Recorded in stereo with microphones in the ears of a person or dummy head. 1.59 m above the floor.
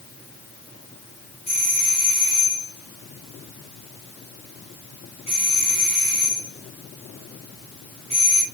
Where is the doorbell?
30° left (ahead or behind), 1.4 m.